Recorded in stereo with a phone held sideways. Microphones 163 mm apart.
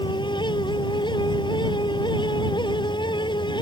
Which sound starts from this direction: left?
A fan, at 0.0 s.